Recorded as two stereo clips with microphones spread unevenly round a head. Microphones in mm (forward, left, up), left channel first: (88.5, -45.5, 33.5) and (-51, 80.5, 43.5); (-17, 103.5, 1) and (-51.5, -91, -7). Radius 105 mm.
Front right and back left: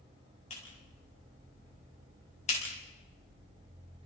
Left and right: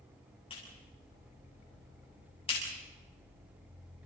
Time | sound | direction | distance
0.5 | a clap | 15° left | 6.5 m